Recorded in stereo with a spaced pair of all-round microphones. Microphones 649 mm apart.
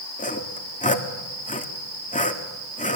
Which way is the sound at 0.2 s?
10° left (ahead or behind).